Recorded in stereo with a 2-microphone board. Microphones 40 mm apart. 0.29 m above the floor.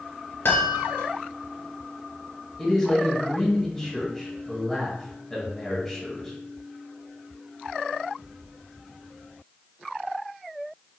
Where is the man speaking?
10° left (ahead or behind), 1.4 m.